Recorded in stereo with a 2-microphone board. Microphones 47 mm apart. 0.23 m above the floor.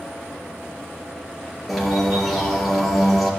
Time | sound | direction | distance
1.7 | a bird | centre (ahead or behind) | 2 m